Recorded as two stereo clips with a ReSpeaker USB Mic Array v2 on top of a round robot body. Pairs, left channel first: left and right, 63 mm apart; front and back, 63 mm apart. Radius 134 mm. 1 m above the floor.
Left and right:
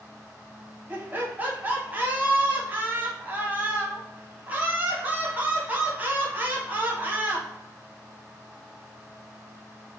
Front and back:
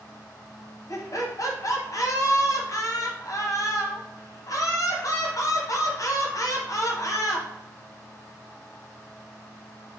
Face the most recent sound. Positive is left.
turn(degrees=-30)